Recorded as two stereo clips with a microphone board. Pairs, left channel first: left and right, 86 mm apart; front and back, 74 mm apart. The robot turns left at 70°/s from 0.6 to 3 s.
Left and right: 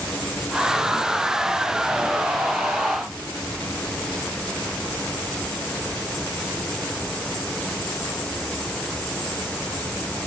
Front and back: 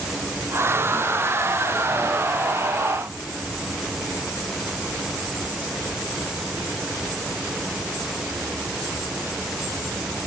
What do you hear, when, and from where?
Only background noise.